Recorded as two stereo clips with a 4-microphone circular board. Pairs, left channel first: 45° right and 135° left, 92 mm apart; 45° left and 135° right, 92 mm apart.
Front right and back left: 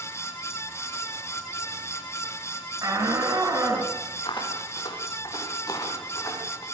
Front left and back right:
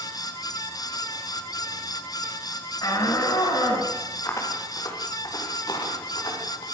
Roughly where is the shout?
Left.